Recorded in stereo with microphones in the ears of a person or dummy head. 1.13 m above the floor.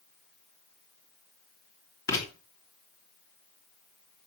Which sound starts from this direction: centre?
Writing, at 2.1 s.